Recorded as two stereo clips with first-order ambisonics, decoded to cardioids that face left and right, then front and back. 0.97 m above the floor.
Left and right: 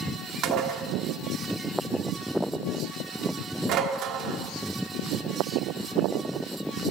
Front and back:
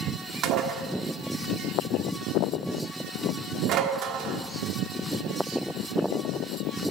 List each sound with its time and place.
0.4 s dishes clattering: 135° right, 1.3 m